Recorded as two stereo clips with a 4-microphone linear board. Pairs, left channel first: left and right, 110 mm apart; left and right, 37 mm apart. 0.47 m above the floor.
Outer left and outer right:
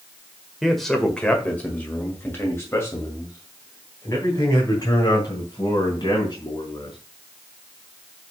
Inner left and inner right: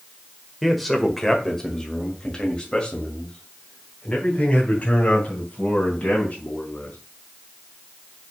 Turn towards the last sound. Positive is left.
turn(degrees=40)  # may be behind; listen again after turning